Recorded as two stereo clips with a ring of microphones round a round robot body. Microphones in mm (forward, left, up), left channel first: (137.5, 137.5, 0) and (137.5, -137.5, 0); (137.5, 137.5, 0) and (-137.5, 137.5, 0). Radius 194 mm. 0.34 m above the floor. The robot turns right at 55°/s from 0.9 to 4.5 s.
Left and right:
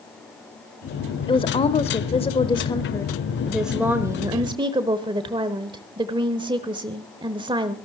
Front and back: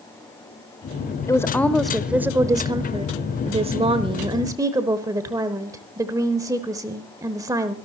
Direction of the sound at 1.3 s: 55° left.